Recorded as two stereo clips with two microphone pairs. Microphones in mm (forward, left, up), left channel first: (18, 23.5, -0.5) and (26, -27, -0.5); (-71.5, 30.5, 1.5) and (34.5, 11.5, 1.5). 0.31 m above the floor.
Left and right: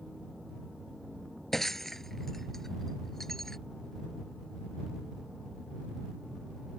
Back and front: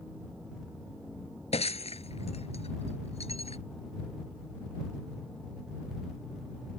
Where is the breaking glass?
175° right.